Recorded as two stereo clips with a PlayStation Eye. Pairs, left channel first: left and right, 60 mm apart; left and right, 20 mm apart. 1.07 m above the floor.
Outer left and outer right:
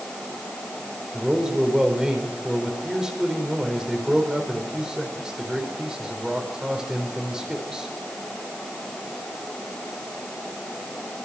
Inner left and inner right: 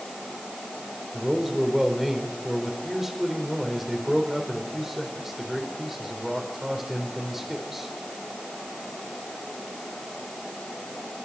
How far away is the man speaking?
About 4 m.